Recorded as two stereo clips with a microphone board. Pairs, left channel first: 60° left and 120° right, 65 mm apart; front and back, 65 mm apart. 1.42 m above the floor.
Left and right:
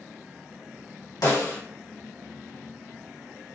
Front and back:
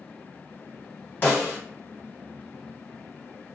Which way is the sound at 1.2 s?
60° left.